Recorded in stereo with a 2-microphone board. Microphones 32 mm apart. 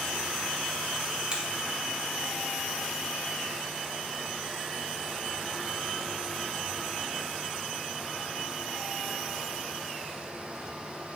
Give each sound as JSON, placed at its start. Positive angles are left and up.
{"t": 1.3, "sound": "a finger snap", "side_deg": -30, "distance_m": 1.5}